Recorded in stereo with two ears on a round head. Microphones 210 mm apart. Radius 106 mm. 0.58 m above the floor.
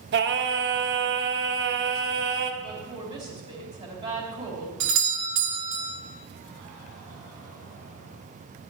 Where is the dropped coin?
I don't hear a dropped coin.